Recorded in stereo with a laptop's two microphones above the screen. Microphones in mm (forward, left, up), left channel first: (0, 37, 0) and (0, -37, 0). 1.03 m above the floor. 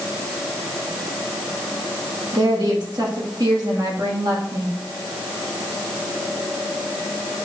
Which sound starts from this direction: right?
A woman speaking, at 2.3 s.